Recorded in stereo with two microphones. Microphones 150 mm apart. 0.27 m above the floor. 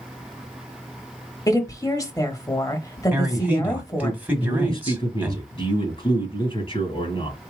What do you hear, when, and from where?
1.5 s a woman speaking: 25° left (ahead or behind), 0.9 m
3.1 s a man speaking: 10° right (ahead or behind), 1.5 m
4.4 s a man speaking: 40° left (ahead or behind), 2.5 m